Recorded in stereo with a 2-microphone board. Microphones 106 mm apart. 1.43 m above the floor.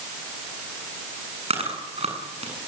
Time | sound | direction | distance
1.5 | chewing | 80° right | 8.5 m